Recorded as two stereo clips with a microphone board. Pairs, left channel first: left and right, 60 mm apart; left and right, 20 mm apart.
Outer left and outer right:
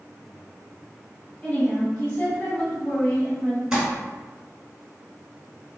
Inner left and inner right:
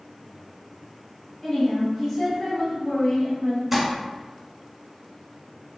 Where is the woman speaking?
30° left (ahead or behind), 1.5 m.